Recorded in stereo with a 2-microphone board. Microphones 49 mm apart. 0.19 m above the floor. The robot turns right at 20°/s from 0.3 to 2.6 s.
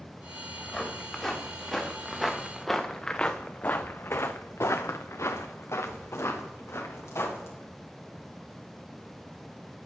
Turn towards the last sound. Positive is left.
turn(degrees=65)  # may be behind; listen again after turning